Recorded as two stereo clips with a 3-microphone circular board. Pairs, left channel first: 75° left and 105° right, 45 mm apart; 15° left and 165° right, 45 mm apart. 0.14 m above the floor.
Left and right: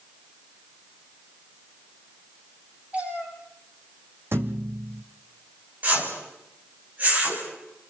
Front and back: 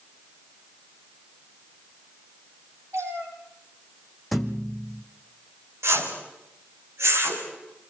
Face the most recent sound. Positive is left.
turn(degrees=-155)